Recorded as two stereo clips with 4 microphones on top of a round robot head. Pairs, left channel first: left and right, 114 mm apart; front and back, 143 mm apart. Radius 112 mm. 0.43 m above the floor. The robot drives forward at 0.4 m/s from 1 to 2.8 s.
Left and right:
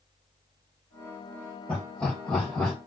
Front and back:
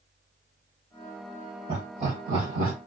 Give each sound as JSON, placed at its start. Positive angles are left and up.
{"t": 1.7, "sound": "laughter", "azimuth_deg": 170, "distance_m": 2.0}